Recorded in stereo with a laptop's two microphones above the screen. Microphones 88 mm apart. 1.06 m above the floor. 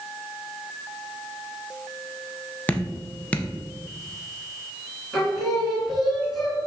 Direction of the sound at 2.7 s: 15° left (ahead or behind).